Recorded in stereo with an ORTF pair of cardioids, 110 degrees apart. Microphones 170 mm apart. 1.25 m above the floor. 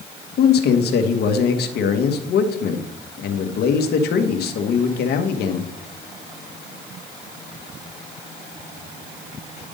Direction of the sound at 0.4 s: 65° left.